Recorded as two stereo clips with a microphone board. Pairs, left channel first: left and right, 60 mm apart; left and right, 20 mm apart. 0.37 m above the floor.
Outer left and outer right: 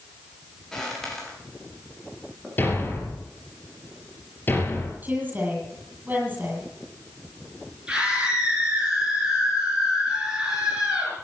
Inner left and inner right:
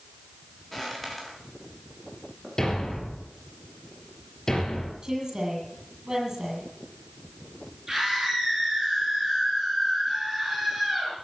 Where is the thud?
35° left (ahead or behind), 3.5 m.